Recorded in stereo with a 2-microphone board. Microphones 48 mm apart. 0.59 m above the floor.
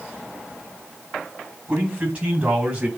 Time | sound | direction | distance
1.7 | a man speaking | 25° right (ahead or behind) | 5 m